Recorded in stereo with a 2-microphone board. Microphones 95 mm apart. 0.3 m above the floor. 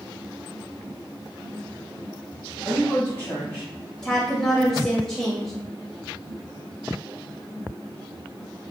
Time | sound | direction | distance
2.6 | a woman speaking | 20° left (ahead or behind) | 1.0 m
4.0 | a woman speaking | 5° left (ahead or behind) | 0.9 m